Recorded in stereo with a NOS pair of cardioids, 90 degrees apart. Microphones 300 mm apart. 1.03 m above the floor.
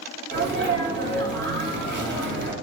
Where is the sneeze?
40° right, 1.1 m.